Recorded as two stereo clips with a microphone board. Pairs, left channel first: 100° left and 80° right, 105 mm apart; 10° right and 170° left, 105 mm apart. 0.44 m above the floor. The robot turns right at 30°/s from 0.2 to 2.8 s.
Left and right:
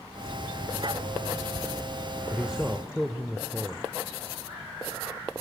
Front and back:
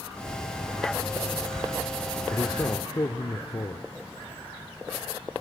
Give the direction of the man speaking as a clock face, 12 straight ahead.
12 o'clock.